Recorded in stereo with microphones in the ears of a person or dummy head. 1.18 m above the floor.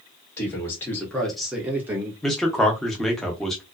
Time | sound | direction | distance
0.4 | a man speaking | 15° left (ahead or behind) | 1.1 m
2.2 | a man speaking | 5° left (ahead or behind) | 0.7 m